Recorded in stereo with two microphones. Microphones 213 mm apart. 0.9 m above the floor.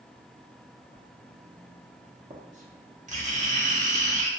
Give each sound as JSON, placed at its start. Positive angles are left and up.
{"t": 0.9, "sound": "writing", "side_deg": -35, "distance_m": 0.6}